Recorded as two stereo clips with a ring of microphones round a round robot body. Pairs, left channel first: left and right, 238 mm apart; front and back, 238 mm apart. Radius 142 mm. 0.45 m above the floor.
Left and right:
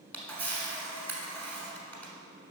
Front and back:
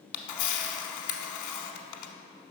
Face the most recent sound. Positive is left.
turn(degrees=5)